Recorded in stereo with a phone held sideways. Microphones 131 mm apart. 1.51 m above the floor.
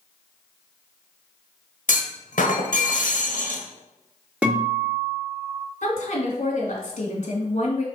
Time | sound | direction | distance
1.9 | a clunk | 75° left (ahead or behind) | 1.1 m
4.4 | a guitar | 10° right (ahead or behind) | 2 m
5.8 | a woman speaking | 60° left (ahead or behind) | 2 m